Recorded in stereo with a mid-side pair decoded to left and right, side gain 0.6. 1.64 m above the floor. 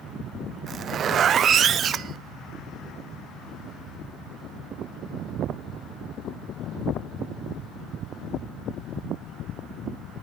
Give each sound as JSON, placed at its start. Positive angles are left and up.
{"t": 0.7, "sound": "a zipper", "azimuth_deg": -45, "distance_m": 0.6}